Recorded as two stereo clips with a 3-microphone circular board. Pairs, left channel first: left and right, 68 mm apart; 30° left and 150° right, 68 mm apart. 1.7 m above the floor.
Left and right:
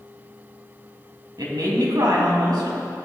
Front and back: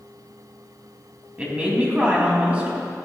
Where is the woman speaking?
80° right, 3 m.